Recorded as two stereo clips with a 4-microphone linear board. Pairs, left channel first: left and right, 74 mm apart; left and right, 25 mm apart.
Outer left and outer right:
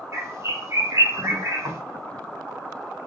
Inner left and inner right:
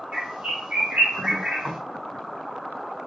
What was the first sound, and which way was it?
A bird, 35° right (ahead or behind).